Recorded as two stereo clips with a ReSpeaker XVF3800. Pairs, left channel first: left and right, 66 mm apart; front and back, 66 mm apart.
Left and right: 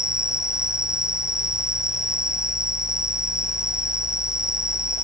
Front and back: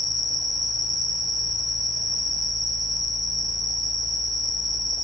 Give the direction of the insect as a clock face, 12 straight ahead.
6 o'clock.